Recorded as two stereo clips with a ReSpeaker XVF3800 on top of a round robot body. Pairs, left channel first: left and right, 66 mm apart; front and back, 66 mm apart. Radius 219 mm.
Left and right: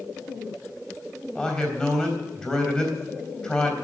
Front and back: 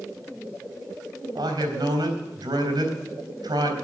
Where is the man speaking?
170° left, 4 m.